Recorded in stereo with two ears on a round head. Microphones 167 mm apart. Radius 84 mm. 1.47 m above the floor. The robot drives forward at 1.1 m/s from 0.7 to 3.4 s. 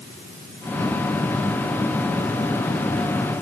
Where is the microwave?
No microwave in this recording.